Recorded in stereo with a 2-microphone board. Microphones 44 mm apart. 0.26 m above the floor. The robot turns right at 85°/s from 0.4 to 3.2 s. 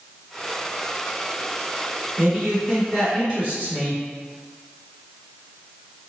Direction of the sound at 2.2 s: 70° right.